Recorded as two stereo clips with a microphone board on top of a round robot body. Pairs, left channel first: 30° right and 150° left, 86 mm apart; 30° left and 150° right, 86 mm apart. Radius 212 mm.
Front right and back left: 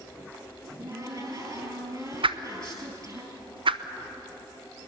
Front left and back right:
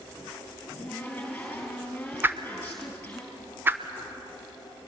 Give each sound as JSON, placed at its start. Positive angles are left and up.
{"t": 0.6, "sound": "a cupboard door", "azimuth_deg": 105, "distance_m": 3.5}
{"t": 2.2, "sound": "a whoosh", "azimuth_deg": 145, "distance_m": 0.9}